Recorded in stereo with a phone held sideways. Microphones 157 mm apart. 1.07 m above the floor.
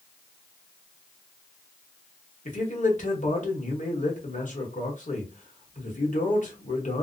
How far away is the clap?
I don't hear a clap.